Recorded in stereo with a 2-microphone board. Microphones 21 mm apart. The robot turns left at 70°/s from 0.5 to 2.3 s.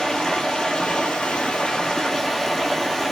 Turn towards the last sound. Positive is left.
turn(degrees=10)